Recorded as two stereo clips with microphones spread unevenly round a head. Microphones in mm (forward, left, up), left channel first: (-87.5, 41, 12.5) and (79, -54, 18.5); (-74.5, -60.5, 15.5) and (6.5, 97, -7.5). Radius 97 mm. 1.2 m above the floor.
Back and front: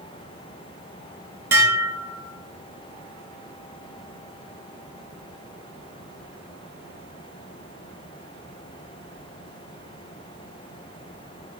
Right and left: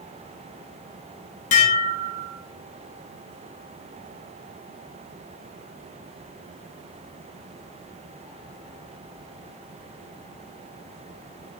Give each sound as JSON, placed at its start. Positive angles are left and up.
{"t": 1.5, "sound": "dishes clattering", "azimuth_deg": -105, "distance_m": 0.5}